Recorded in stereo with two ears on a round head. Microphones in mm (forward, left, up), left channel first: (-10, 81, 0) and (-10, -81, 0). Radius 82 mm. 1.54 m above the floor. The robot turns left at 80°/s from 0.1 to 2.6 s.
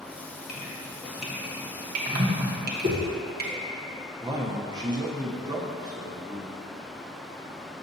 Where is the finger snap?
No finger snap in this recording.